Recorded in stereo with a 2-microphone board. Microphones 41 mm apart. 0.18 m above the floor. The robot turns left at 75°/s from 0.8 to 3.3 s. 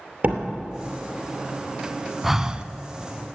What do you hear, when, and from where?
0.2 s a door slam: 35° right (ahead or behind), 2.5 m
2.2 s breathing: 10° right, 0.6 m; by 2.7 s 40° right, 0.6 m